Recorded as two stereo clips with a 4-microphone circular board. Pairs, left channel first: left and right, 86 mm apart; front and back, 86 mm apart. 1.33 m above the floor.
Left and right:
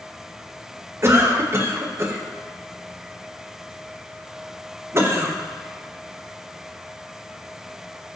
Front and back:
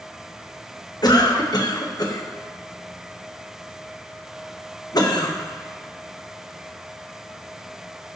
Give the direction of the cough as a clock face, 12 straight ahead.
1 o'clock.